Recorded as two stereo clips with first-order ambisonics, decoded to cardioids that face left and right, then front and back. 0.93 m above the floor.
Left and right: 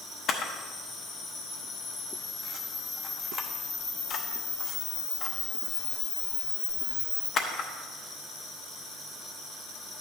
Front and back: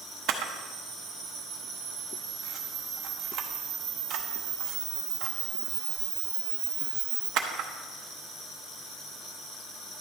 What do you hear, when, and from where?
0.3 s a camera shutter: 145° left, 0.8 m